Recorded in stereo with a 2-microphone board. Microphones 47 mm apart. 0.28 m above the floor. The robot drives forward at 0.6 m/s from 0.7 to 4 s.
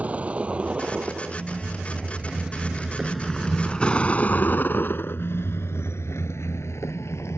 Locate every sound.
0.0 s a vehicle: 30° right (ahead or behind); by 7.4 s 80° left